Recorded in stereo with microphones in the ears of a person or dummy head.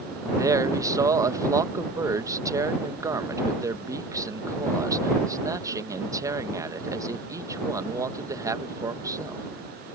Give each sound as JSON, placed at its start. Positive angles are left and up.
{"t": 0.4, "sound": "a man speaking", "side_deg": -15}